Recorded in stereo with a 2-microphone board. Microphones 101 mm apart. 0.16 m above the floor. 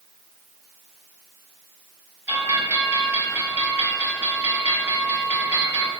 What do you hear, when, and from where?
2.3 s a bell: 25° right (ahead or behind), 3.5 m